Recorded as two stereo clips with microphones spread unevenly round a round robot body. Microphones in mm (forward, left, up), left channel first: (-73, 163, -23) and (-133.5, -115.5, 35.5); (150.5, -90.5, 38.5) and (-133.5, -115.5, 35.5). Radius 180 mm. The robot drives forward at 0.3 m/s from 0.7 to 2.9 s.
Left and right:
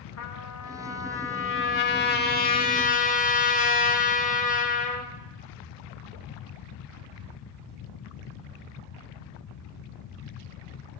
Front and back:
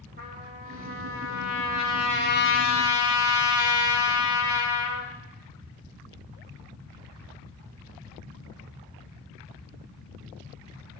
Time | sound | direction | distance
0.2 | a trumpet | 115° left | 0.9 m